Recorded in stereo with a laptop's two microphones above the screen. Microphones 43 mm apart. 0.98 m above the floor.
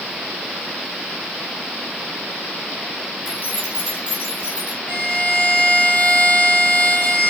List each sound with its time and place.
3.2 s keys jangling: 45° left (ahead or behind), 3 m; by 4.8 s 35° left (ahead or behind), 4 m
4.9 s a violin: 35° left (ahead or behind), 1.2 m